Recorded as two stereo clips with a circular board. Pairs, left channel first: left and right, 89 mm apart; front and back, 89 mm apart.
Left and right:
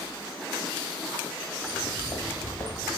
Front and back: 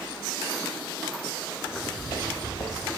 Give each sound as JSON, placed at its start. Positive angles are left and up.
{"t": 1.6, "sound": "footsteps", "azimuth_deg": 45, "distance_m": 9.0}